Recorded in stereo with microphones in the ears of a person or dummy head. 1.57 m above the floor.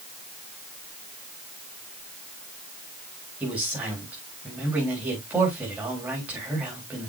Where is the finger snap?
I don't hear a finger snap.